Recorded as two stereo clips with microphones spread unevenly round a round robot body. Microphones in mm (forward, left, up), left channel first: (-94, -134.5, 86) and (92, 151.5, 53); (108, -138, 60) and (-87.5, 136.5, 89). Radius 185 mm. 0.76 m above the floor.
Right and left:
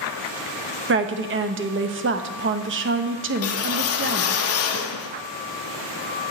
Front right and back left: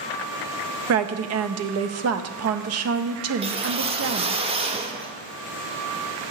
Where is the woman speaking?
90° left, 0.7 m.